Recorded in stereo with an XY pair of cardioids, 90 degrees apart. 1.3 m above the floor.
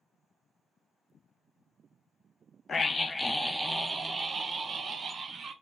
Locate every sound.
2.7 s a scream: 45° left, 0.8 m; by 5.5 s 45° right, 1.6 m